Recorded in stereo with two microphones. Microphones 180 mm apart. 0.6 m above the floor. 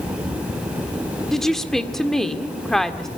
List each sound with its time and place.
1.3 s a woman speaking: centre (ahead or behind), 1.8 m